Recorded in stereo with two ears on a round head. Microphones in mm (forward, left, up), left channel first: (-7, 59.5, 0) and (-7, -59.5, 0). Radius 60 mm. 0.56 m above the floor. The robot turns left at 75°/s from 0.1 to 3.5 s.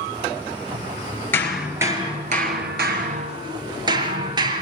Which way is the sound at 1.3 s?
15° left.